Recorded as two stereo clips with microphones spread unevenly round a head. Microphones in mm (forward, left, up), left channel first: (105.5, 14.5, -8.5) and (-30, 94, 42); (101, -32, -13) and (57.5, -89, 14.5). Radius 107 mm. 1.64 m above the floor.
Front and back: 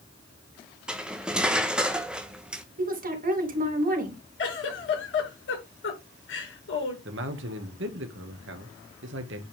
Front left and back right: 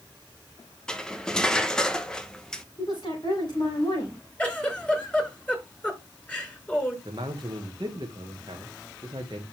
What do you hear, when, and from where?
0.9 s cutlery clinking: 175° left, 0.8 m
2.8 s a woman speaking: 115° left, 4 m
4.4 s a giggle: 25° right, 6.5 m
7.0 s a man speaking: 175° left, 1.7 m